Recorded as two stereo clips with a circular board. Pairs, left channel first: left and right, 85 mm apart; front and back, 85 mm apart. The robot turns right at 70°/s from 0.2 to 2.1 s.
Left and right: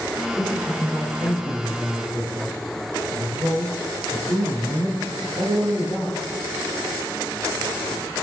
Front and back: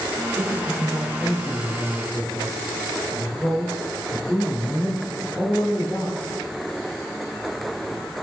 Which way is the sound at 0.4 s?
Straight behind.